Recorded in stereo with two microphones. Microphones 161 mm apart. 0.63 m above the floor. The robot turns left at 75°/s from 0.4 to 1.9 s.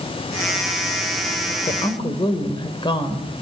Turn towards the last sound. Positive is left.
turn(degrees=30)  # may be behind; listen again after turning